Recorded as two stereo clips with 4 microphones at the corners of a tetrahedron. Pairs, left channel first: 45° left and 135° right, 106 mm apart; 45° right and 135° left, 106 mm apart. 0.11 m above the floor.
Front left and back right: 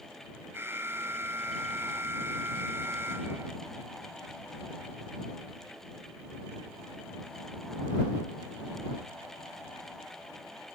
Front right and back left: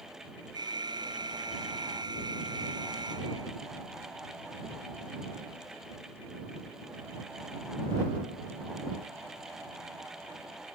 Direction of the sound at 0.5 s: 165° left.